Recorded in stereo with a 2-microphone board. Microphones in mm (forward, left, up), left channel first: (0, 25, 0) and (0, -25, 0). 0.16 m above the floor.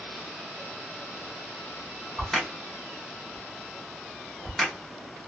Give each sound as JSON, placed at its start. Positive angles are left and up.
{"t": 2.2, "sound": "a crack", "side_deg": 0, "distance_m": 1.1}